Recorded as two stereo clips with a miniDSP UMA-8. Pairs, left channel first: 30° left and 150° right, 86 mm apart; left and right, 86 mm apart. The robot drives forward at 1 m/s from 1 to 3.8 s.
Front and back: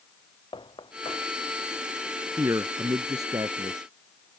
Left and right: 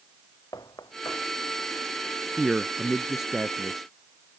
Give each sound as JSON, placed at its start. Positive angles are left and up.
{"t": 0.5, "sound": "knocking", "azimuth_deg": 45}
{"t": 2.4, "sound": "a man speaking", "azimuth_deg": -170}